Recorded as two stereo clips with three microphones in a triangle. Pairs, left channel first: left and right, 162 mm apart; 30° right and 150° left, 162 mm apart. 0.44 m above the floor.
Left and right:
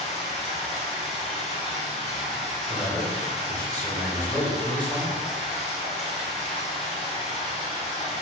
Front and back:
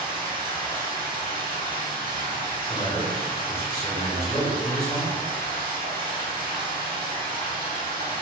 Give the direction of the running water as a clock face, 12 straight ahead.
10 o'clock.